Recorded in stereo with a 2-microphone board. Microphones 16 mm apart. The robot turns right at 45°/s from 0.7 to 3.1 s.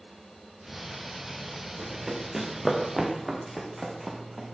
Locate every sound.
1.8 s running footsteps: 40° right (ahead or behind), 4 m; by 4.5 s 25° right (ahead or behind), 3.5 m